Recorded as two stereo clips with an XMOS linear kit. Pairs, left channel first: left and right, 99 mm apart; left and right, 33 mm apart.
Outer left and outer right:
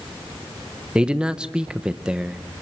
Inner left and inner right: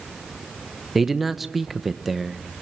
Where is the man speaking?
10° right (ahead or behind), 0.7 m.